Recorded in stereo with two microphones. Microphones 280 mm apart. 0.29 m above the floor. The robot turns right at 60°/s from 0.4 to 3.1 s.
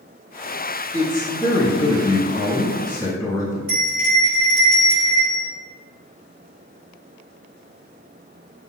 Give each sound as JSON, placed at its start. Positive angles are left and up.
{"t": 0.9, "sound": "a man speaking", "side_deg": 10, "distance_m": 1.0}
{"t": 3.7, "sound": "a bell", "side_deg": -35, "distance_m": 1.9}